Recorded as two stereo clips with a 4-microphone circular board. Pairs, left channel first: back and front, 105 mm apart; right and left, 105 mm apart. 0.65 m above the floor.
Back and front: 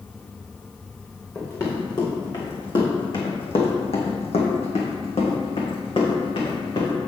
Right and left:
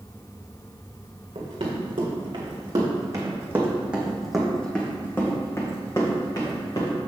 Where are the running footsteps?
120° left, 3 m; by 7.0 s 135° right, 3.5 m.